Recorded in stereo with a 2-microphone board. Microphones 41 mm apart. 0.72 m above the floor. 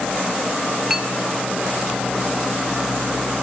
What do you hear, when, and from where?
0.9 s a clink: 10° right (ahead or behind), 1.4 m